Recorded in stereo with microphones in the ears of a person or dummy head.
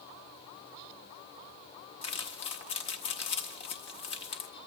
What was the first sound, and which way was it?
Crumpling, 30° left (ahead or behind).